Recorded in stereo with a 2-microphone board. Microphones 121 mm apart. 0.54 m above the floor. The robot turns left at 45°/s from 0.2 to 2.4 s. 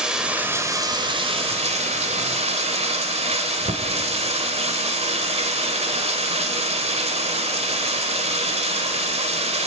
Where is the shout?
No shout in this recording.